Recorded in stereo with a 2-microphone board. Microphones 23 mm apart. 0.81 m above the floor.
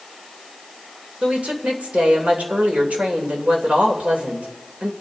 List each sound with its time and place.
1.2 s a woman speaking: 75° right (ahead or behind), 3 m